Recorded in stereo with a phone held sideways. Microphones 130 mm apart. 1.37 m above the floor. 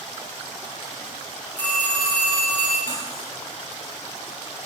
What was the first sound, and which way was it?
A phone ringing, 10° left (ahead or behind).